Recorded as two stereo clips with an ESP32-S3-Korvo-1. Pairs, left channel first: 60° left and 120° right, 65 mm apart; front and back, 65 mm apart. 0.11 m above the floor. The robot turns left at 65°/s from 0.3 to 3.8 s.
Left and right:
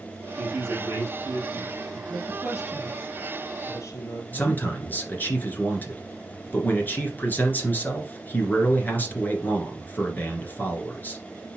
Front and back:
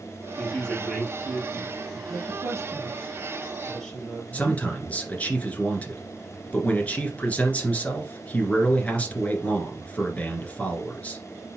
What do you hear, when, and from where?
0.4 s a woman speaking: 55° right, 3.5 m; by 2.0 s 160° right, 3.5 m
2.1 s a woman speaking: 165° right, 3 m; by 4.6 s 80° left, 3 m
4.3 s a man speaking: 45° left, 1.8 m